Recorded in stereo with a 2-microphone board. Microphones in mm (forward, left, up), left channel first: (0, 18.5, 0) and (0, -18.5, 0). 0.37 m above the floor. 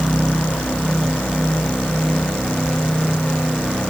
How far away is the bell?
No bell in this recording.